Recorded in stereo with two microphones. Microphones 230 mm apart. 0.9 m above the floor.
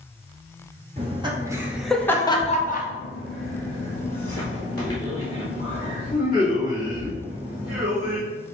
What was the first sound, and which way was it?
Laughter, 25° right (ahead or behind).